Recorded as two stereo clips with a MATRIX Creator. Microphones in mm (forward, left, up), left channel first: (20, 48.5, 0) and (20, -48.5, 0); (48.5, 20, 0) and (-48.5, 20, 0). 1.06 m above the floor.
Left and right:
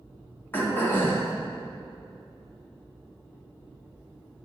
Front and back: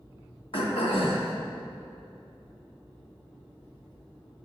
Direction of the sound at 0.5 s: 20° left.